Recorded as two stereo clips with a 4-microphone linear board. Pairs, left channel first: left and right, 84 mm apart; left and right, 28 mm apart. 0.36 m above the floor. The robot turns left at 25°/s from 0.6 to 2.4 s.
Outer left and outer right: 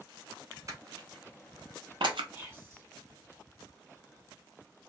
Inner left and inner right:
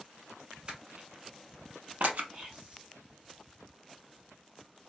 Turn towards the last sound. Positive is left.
turn(degrees=-30)  # may be behind; listen again after turning